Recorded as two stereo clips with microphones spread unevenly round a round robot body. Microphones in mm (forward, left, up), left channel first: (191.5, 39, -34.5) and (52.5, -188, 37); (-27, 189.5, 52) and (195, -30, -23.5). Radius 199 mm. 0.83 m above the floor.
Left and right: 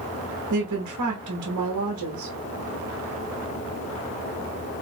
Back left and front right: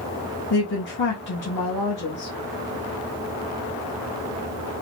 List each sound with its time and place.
0.5 s a woman speaking: 160° right, 1.0 m